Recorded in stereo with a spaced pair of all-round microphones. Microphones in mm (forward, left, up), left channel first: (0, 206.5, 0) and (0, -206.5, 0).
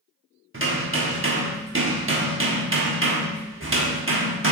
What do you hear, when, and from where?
0.5 s hammering: 30° right (ahead or behind), 1.1 m